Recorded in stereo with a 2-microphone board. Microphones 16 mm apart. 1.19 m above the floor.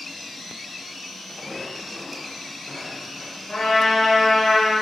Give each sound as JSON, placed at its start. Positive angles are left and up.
{"t": 1.3, "sound": "footsteps", "side_deg": 70, "distance_m": 3.5}
{"t": 3.5, "sound": "a trumpet", "side_deg": 65, "distance_m": 3.0}